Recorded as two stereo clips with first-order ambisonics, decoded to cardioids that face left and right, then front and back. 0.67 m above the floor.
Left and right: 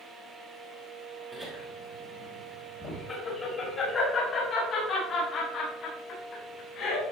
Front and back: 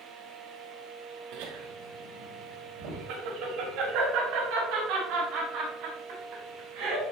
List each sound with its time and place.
1.3 s laughter: 170° left, 2.5 m; by 7.1 s 140° left, 6.5 m